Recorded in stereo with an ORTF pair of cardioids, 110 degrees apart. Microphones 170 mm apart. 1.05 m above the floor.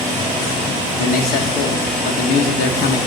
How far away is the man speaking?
About 0.9 m.